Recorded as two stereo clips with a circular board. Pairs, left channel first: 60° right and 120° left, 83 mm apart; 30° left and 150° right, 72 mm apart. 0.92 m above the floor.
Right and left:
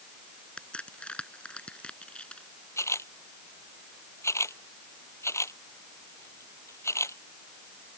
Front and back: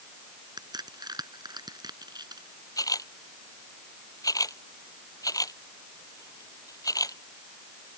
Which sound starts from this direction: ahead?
A camera shutter, at 2.8 s.